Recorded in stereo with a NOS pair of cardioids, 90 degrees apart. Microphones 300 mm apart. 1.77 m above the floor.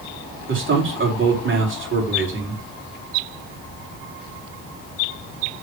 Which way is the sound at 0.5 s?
40° right.